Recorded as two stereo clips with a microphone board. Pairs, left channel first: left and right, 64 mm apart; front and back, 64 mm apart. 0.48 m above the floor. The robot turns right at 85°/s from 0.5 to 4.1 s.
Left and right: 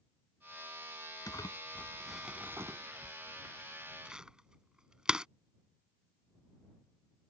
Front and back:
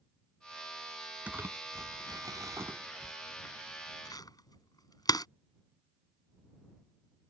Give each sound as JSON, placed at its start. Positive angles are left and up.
{"t": 1.3, "sound": "crumpling", "azimuth_deg": 110}